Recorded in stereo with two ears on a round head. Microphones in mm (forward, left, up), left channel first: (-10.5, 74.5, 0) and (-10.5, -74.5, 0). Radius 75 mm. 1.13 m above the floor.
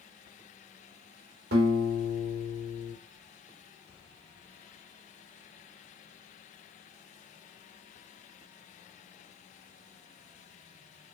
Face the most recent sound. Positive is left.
turn(degrees=-75)  # may be behind; listen again after turning